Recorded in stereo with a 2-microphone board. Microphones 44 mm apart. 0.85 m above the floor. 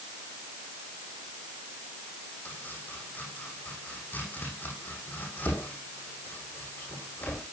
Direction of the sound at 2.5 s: 45° left (ahead or behind).